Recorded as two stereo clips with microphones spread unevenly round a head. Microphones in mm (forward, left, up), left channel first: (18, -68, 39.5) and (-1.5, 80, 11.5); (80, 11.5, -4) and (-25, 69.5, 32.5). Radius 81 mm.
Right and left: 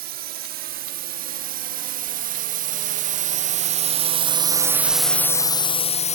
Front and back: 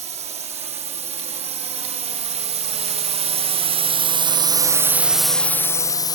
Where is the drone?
115° left; by 6.2 s 45° right.